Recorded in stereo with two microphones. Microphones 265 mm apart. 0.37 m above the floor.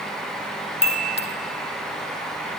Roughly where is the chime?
Left.